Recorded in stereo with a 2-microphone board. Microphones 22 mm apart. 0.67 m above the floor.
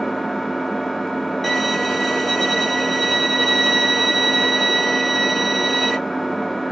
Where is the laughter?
No laughter in this recording.